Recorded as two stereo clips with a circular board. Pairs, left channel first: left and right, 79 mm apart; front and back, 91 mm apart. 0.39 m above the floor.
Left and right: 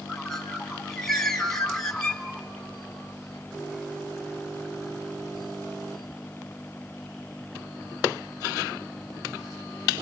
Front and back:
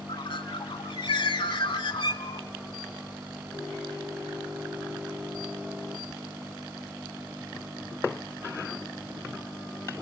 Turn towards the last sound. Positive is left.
turn(degrees=5)